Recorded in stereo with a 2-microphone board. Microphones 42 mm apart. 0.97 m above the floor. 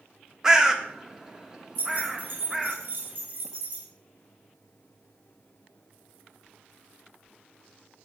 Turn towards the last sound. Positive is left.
turn(degrees=-55)  # may be behind; listen again after turning